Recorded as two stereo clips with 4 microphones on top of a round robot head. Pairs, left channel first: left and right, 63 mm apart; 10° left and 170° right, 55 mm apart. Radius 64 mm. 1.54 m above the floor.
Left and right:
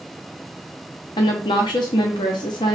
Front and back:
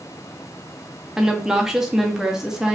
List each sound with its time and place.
1.2 s a woman speaking: 110° left, 0.6 m